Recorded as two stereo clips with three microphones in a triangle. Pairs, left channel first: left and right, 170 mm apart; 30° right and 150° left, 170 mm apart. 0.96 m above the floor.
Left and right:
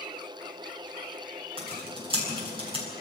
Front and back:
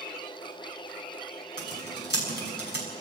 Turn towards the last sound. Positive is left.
turn(degrees=-30)